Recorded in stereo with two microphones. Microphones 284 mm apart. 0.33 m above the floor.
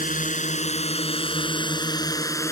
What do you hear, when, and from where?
0.0 s a drone: 30° left (ahead or behind); by 2.5 s 10° left (ahead or behind)